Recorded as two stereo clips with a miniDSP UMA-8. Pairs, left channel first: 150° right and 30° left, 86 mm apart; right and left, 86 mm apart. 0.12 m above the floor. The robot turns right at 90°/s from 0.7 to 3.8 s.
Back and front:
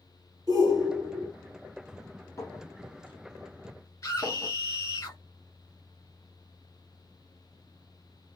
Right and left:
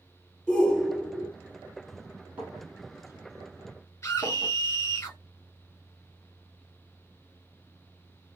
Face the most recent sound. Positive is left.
turn(degrees=-115)